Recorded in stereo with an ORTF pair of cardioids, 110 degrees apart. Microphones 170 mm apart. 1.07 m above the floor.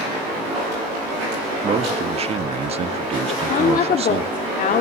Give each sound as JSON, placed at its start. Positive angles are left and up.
{"t": 1.6, "sound": "a man speaking", "azimuth_deg": -35, "distance_m": 1.7}
{"t": 3.3, "sound": "a woman speaking", "azimuth_deg": 55, "distance_m": 2.0}